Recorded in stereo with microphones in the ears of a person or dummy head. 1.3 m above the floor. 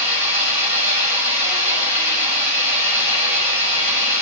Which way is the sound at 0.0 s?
40° right (ahead or behind).